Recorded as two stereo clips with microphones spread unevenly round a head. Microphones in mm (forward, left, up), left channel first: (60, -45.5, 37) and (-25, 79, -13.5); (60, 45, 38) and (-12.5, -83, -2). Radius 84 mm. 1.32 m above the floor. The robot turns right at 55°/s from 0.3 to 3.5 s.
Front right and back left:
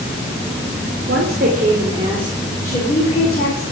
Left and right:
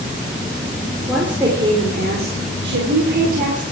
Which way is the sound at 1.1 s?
145° left.